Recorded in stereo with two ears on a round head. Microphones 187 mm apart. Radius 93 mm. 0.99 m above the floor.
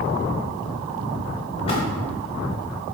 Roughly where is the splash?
Left.